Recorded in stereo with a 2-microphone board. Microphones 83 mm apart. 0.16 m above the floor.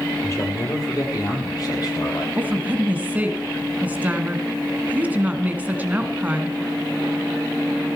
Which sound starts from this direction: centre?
A woman speaking, at 2.4 s.